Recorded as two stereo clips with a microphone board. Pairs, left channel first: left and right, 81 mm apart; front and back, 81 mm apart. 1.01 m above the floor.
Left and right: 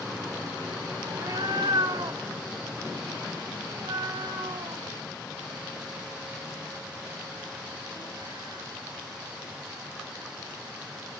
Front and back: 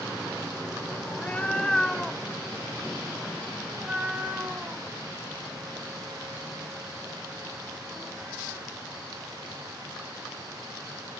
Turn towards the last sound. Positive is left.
turn(degrees=-110)